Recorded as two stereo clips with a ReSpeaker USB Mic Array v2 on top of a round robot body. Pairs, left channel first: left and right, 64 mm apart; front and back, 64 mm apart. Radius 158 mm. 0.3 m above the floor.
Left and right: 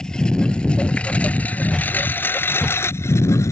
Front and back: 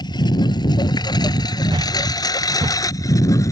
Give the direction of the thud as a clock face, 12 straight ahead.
6 o'clock.